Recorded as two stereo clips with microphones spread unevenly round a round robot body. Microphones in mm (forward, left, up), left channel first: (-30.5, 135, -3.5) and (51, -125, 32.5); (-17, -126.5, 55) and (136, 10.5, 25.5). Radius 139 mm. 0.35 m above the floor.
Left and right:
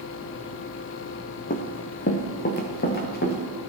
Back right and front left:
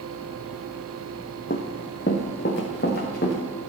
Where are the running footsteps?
170° left, 0.8 m; by 3.4 s 165° left, 2.0 m.